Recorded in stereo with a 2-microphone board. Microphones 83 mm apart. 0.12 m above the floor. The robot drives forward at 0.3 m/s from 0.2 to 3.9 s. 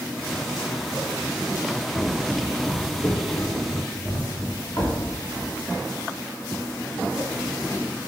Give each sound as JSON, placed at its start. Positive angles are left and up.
{"t": 1.9, "sound": "footsteps", "side_deg": -15, "distance_m": 0.6}